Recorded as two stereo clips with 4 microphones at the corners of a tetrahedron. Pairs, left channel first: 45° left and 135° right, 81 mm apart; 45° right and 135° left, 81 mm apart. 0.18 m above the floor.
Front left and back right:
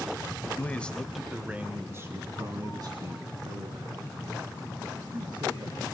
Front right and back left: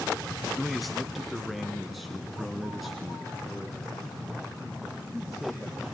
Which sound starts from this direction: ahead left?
A man speaking, at 0.6 s.